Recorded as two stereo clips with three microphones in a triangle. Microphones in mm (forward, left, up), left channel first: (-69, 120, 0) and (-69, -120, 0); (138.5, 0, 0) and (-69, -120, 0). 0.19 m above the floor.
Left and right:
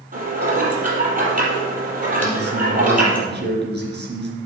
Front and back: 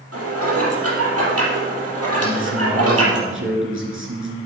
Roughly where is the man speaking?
Behind right.